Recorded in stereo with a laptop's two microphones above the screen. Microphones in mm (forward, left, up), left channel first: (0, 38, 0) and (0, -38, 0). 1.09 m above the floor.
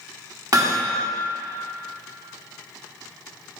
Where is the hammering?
50° right (ahead or behind), 1.1 m.